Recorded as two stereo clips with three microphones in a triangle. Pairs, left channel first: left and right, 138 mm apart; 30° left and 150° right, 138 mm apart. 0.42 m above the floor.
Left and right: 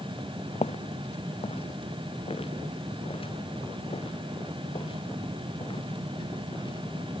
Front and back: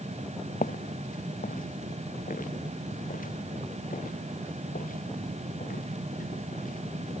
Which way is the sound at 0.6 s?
45° left.